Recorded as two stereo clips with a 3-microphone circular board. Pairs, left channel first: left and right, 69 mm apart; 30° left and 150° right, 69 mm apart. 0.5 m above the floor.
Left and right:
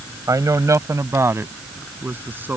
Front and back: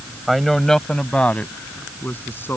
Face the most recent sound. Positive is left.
turn(degrees=-30)